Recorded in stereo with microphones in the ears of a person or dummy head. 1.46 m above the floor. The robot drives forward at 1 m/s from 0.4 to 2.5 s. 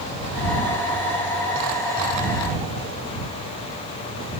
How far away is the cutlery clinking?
No cutlery clinking in this recording.